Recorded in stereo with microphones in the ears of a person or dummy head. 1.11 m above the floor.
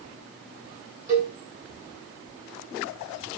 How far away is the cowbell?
About 1.7 m.